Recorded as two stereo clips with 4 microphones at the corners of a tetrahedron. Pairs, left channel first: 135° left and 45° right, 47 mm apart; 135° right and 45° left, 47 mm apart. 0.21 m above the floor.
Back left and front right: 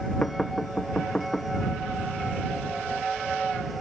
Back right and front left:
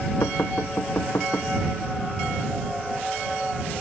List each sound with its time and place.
0.2 s knocking: 155° right